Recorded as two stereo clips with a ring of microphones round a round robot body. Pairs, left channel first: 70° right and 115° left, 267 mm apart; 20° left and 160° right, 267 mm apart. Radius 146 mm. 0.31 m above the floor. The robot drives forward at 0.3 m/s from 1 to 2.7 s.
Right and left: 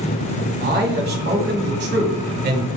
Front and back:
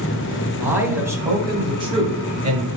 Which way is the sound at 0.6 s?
125° left.